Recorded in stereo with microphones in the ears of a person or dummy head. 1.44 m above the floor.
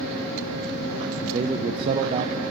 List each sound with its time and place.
1.2 s a man speaking: 25° right (ahead or behind), 0.5 m